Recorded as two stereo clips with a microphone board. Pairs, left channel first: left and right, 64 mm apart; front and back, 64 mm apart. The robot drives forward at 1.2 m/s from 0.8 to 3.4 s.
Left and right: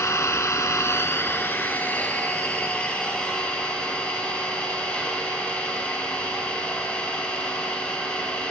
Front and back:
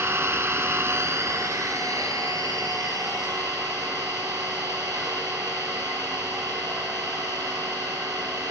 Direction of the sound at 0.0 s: 130° left.